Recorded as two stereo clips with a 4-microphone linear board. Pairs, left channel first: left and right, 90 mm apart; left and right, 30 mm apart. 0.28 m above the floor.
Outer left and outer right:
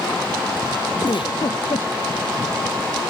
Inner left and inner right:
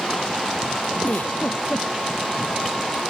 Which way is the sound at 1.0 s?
70° left (ahead or behind).